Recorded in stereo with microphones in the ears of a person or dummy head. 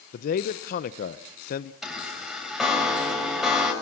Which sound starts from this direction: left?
A man speaking, at 0.1 s.